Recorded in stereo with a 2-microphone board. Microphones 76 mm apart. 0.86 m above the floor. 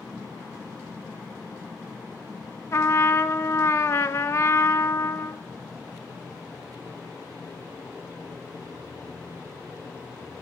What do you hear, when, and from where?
2.7 s a trumpet: 35° left (ahead or behind), 1.0 m